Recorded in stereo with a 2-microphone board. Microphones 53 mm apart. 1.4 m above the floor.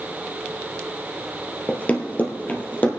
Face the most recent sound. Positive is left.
turn(degrees=30)  # may be behind; listen again after turning